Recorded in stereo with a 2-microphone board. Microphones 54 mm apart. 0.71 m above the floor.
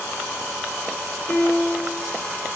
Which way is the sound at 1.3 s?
35° left (ahead or behind).